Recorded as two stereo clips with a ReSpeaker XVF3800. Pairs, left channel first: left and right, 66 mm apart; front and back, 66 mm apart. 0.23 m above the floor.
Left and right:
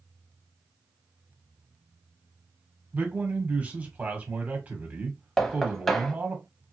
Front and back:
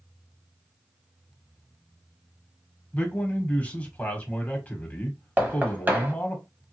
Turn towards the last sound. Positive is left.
turn(degrees=175)